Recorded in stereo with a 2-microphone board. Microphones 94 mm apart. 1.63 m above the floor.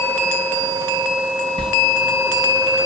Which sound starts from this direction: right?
A sliding door, at 1.6 s.